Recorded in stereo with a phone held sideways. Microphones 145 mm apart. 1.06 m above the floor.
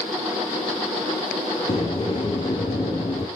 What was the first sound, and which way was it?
A sliding door, 35° left (ahead or behind).